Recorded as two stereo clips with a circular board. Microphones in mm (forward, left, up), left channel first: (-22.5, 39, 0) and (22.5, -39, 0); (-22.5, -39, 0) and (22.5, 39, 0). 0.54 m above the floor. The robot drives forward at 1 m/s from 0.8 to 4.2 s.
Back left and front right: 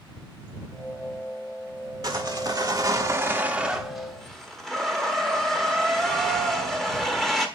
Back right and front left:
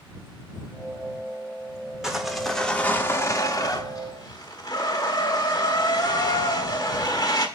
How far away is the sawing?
About 1.4 m.